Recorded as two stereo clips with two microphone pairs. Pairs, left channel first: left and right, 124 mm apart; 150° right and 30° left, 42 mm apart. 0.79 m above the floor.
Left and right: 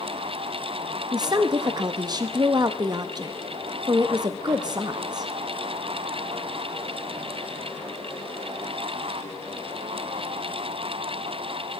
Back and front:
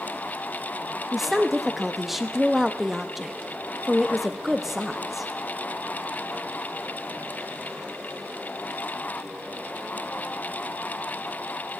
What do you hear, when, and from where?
1.1 s a woman speaking: 55° right, 0.7 m